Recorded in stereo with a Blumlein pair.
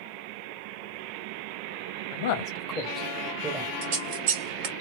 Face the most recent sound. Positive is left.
turn(degrees=-45)